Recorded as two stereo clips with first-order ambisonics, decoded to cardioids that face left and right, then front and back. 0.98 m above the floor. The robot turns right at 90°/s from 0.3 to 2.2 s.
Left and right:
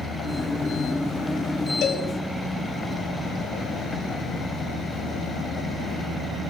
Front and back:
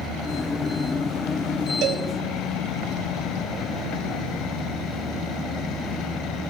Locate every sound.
1.8 s a cowbell: 140° left, 1.0 m; by 2.1 s 160° left, 1.0 m